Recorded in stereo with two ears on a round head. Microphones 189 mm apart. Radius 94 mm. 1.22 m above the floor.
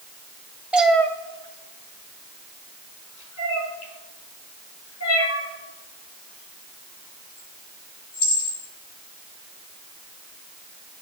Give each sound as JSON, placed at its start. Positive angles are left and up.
{"t": 0.7, "sound": "a cat meowing", "side_deg": -5, "distance_m": 1.8}